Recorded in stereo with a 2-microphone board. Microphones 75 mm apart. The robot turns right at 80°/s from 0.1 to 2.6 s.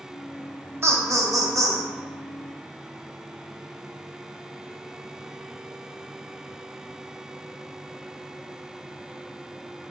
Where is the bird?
No bird in this recording.